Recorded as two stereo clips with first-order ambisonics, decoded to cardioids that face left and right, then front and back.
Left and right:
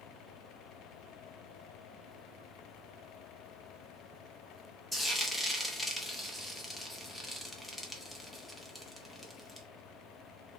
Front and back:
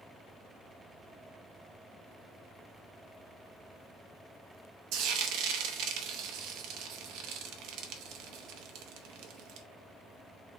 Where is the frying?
170° left, 0.6 m.